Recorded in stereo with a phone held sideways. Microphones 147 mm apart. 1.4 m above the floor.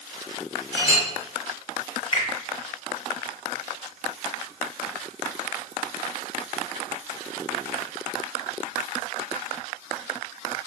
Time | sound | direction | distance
0.7 | a clink | 40° right (ahead or behind) | 1.8 m
2.1 | a finger snap | 40° left (ahead or behind) | 1.2 m